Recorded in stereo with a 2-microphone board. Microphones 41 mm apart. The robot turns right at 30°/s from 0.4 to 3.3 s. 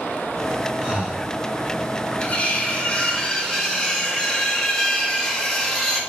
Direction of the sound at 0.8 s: 20° right (ahead or behind).